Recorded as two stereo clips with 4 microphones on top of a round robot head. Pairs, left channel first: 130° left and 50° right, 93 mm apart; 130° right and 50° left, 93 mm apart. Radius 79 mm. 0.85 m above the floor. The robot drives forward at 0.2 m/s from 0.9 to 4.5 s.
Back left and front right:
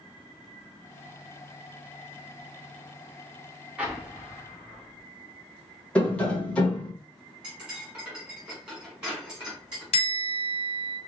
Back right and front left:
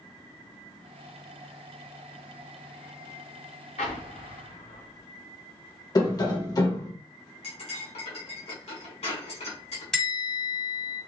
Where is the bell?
145° left, 1.3 m.